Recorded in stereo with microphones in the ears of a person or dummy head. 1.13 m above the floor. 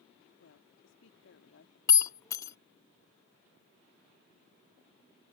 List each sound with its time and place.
0.4 s a woman speaking: 65° left (ahead or behind)
1.9 s breaking glass: 20° left (ahead or behind)